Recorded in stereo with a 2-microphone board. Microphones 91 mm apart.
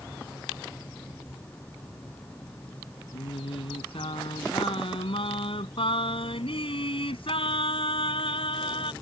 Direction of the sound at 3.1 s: 80° left.